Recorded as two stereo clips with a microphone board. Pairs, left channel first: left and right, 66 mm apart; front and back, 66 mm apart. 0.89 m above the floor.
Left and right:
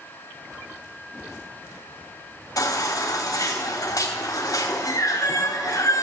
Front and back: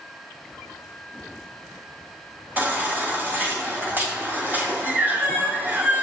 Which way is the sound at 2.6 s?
120° left.